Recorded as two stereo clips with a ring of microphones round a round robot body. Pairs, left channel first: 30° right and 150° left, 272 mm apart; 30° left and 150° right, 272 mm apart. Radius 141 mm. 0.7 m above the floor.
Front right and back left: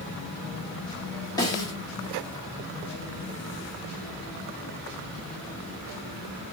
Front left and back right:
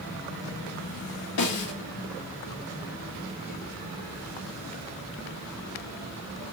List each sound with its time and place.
1.4 s a snare drum: 45° left, 1.5 m